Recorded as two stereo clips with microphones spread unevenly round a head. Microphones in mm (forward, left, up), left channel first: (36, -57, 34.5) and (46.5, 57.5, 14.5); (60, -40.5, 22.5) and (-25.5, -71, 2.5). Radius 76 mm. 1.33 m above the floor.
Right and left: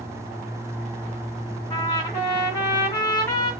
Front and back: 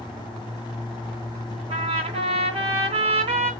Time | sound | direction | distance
1.7 | a trumpet | 160° right | 1.8 m